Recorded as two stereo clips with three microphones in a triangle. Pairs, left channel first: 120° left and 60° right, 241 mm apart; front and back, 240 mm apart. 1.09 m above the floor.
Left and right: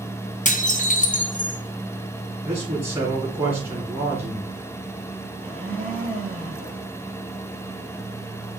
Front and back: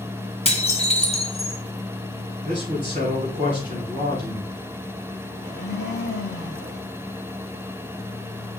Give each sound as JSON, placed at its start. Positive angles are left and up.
{"t": 0.5, "sound": "dishes clattering", "azimuth_deg": 60, "distance_m": 0.9}
{"t": 2.4, "sound": "a man speaking", "azimuth_deg": -125, "distance_m": 4.0}
{"t": 5.4, "sound": "a blender", "azimuth_deg": 40, "distance_m": 3.0}